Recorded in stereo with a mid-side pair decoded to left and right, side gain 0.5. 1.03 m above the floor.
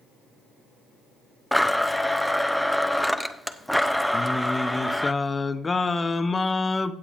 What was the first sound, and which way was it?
A blender, straight ahead.